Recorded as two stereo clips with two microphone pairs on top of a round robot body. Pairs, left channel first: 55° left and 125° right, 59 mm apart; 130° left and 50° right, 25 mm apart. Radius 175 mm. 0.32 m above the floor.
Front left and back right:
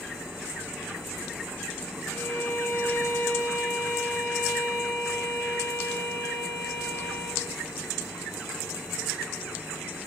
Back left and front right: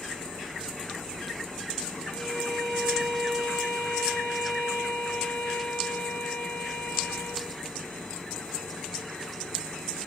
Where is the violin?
90° left, 5.5 m.